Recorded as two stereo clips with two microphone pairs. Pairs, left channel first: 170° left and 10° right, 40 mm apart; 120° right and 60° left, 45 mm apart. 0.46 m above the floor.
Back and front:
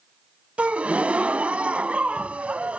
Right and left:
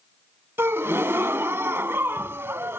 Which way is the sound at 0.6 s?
40° left.